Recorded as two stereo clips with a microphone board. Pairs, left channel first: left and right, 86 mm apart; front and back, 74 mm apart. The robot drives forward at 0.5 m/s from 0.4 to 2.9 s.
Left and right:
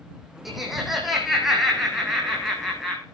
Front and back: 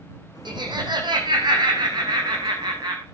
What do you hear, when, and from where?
0.5 s laughter: 175° right, 5 m; by 3.0 s straight behind, 6 m